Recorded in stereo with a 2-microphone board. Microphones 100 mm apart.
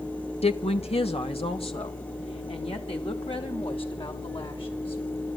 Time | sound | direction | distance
0.4 | a woman speaking | 85° left | 1.7 m